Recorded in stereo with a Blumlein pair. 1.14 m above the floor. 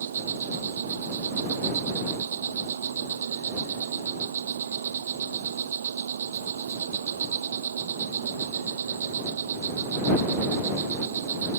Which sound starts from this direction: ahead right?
An insect, at 0.0 s.